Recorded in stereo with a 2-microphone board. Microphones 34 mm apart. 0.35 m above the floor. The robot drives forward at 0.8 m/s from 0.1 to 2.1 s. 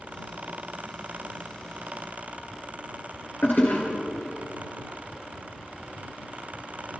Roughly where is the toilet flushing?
Left.